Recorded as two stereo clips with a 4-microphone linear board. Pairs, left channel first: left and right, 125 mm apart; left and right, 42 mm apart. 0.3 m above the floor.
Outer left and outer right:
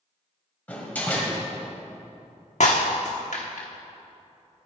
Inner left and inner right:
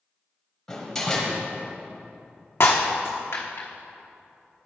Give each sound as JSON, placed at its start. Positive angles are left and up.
{"t": 0.7, "sound": "a door slam", "side_deg": 15, "distance_m": 1.4}
{"t": 2.6, "sound": "breaking glass", "side_deg": 75, "distance_m": 1.2}